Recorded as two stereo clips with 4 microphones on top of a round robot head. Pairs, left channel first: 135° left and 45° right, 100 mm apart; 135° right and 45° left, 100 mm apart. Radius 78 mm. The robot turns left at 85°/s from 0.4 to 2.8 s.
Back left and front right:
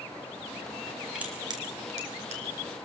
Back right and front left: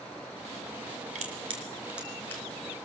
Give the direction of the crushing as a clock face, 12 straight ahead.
11 o'clock.